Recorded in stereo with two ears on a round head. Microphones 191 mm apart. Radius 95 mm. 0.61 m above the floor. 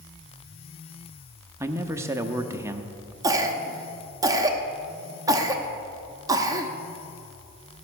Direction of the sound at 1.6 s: 15° right (ahead or behind).